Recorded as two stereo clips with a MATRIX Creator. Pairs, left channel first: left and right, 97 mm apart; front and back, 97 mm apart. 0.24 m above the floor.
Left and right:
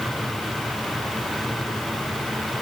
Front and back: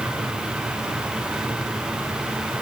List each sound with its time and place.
Only background noise.